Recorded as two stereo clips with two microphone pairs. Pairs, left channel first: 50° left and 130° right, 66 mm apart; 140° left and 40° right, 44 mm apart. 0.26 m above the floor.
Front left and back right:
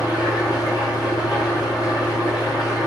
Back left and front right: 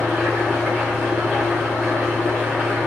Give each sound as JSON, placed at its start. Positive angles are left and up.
{"t": 0.0, "sound": "an engine running", "azimuth_deg": 35, "distance_m": 7.0}